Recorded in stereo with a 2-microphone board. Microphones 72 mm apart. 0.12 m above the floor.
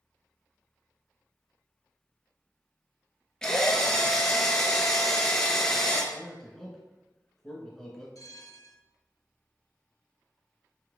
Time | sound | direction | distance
3.4 | a drill | 10° left (ahead or behind) | 1.0 m
6.1 | a man speaking | 5° left (ahead or behind) | 1.3 m
8.2 | a bell | 55° left (ahead or behind) | 0.7 m